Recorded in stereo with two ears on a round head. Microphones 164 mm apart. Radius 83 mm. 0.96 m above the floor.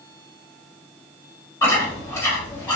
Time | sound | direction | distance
1.6 | chewing | 15° left (ahead or behind) | 1.7 m